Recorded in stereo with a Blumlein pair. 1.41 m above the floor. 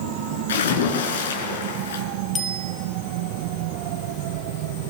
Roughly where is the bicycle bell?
Ahead.